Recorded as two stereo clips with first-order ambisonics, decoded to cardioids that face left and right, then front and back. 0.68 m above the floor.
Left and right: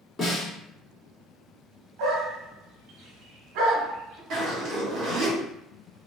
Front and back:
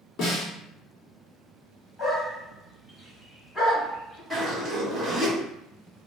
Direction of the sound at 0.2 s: 20° left.